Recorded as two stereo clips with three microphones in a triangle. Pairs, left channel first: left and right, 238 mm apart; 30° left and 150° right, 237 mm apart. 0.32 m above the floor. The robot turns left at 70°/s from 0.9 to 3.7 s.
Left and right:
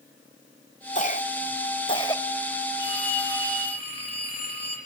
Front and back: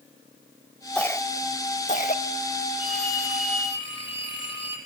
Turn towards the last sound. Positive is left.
turn(degrees=100)